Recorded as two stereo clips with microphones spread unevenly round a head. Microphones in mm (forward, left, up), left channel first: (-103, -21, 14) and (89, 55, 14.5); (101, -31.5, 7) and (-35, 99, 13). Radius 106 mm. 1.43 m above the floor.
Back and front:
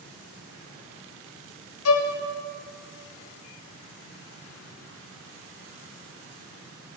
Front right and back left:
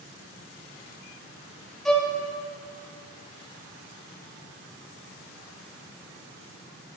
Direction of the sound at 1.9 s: 135° right.